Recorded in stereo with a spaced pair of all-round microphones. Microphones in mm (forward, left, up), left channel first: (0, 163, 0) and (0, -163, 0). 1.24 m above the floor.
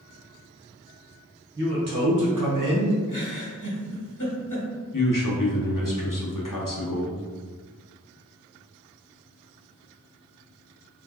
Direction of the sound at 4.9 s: 80° left.